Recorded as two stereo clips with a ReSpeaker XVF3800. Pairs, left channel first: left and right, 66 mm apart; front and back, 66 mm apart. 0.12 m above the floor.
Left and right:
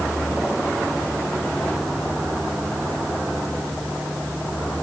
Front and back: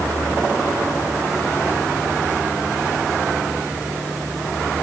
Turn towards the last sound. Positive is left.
No sound to turn to.